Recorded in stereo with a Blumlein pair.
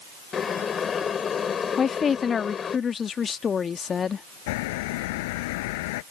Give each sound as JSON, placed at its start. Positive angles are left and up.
{"t": 0.3, "sound": "boiling", "azimuth_deg": 20}
{"t": 1.8, "sound": "a woman speaking", "azimuth_deg": 20}
{"t": 4.5, "sound": "a bird", "azimuth_deg": 50}